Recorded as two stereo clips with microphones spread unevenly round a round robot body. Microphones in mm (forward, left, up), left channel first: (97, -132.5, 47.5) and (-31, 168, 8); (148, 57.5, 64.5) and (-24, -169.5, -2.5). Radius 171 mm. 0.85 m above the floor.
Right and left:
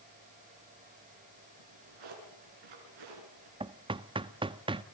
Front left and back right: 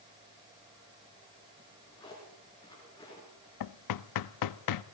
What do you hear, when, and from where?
1.6 s a drawer: 130° left, 5.5 m
3.6 s knocking: 35° left, 0.6 m